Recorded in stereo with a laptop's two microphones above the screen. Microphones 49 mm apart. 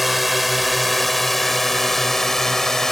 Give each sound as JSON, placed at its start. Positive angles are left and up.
{"t": 0.0, "sound": "a drone", "side_deg": 0}